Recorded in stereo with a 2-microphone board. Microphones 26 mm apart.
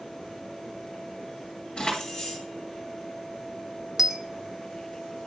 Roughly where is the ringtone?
I don't hear a ringtone.